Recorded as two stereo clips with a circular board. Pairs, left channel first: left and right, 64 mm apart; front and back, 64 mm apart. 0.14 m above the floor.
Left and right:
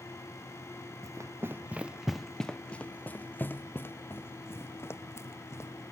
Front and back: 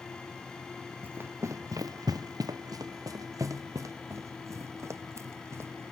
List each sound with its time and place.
1.0 s running footsteps: 120° right; by 5.8 s 135° left